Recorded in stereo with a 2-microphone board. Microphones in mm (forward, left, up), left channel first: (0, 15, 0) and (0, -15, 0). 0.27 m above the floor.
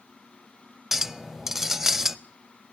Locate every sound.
0.9 s a clink: 10° right (ahead or behind), 0.5 m